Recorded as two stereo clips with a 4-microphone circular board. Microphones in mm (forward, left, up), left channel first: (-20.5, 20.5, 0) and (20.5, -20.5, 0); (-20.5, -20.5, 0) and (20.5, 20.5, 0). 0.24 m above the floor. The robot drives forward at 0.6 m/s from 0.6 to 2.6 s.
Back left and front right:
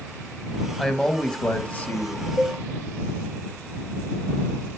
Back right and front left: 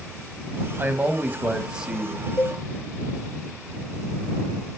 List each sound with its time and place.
0.8 s a man speaking: 50° left, 1.1 m; by 2.3 s 130° left, 1.1 m
2.4 s a cowbell: 145° right, 1.6 m